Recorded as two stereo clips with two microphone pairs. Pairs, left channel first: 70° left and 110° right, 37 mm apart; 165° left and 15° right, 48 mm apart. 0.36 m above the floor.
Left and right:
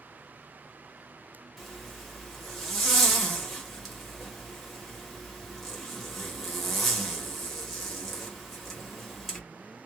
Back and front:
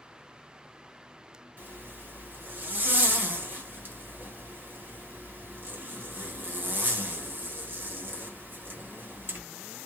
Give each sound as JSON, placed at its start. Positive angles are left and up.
{"t": 1.6, "sound": "a zipper", "azimuth_deg": -15, "distance_m": 1.0}